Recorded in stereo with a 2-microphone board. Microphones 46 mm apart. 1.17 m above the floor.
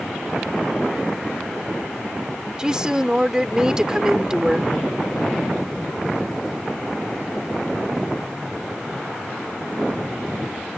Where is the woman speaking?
20° right (ahead or behind).